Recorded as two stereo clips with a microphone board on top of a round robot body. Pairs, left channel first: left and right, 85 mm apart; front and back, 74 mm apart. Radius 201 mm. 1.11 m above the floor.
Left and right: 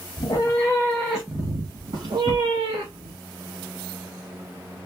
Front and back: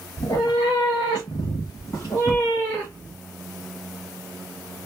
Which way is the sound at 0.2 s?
50° left.